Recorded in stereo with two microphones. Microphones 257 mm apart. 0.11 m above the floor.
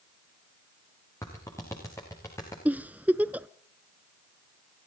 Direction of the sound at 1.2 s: 10° left (ahead or behind).